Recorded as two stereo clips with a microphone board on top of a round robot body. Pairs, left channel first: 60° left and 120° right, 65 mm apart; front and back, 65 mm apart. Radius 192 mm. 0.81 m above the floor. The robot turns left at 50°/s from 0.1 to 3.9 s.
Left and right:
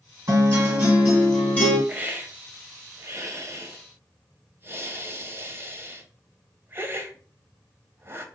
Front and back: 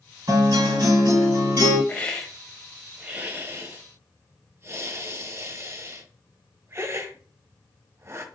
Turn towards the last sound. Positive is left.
turn(degrees=-160)